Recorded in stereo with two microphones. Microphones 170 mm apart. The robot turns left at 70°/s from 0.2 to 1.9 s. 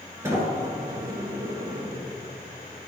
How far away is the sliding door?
About 1.7 m.